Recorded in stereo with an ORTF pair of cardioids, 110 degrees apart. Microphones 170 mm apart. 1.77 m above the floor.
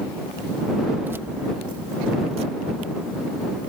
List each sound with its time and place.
1.0 s keys jangling: 10° right; by 3.7 s 50° right